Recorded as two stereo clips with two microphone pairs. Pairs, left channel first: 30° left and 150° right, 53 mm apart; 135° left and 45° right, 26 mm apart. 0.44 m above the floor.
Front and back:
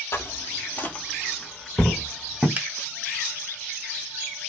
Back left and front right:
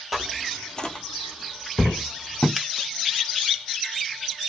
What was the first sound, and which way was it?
Footsteps, 35° left.